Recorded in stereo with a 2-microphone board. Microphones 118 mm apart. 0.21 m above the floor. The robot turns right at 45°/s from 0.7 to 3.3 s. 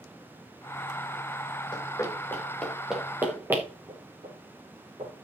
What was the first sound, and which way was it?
Running footsteps, 35° left (ahead or behind).